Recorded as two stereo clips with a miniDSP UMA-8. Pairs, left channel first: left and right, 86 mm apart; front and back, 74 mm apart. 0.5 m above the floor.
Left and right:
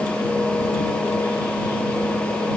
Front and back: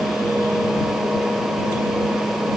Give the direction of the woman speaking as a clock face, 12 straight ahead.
I don't hear a woman speaking.